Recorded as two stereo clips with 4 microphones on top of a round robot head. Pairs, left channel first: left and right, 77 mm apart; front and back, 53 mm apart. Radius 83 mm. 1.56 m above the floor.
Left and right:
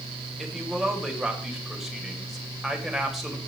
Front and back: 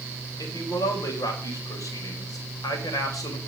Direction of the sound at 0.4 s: Straight ahead.